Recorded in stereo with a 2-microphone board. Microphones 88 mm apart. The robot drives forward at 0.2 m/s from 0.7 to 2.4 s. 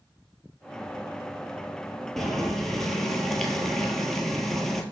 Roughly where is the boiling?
Centre.